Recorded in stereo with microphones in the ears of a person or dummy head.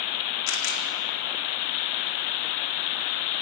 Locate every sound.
0.5 s a camera shutter: 70° left (ahead or behind), 4 m